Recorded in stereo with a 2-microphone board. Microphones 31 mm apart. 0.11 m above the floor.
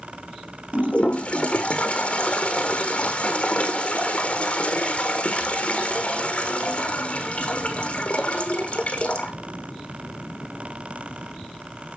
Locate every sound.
0.7 s a toilet flushing: 35° left (ahead or behind), 1.2 m